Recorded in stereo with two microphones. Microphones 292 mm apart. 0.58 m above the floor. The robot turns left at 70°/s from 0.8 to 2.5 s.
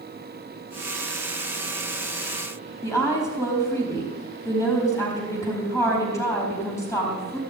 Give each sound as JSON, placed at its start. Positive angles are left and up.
{"t": 2.8, "sound": "a woman speaking", "side_deg": 10, "distance_m": 5.0}